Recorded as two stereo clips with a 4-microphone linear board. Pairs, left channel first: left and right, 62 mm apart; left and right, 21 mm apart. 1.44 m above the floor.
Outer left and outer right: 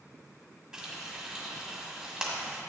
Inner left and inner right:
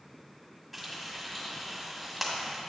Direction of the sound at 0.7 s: 15° right (ahead or behind).